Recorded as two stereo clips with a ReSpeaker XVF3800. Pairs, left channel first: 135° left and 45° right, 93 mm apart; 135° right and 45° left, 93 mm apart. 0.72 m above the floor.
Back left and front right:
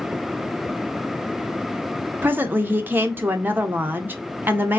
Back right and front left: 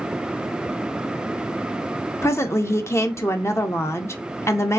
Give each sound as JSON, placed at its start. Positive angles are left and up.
{"t": 2.2, "sound": "a woman speaking", "azimuth_deg": -100, "distance_m": 0.6}